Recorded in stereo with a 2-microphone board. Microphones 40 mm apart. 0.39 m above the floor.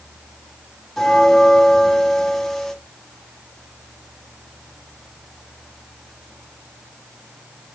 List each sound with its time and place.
1.0 s a bell: 5° left (ahead or behind), 1.6 m